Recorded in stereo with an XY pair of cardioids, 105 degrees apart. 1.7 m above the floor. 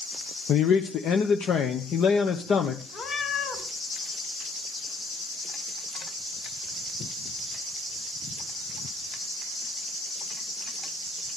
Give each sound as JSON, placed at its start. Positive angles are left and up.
{"t": 0.5, "sound": "a man speaking", "azimuth_deg": 70, "distance_m": 1.2}
{"t": 2.9, "sound": "a cat meowing", "azimuth_deg": 65, "distance_m": 4.0}